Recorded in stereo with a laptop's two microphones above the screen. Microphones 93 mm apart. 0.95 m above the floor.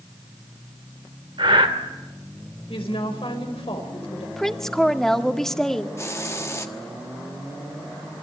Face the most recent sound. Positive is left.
turn(degrees=30)  # may be behind; listen again after turning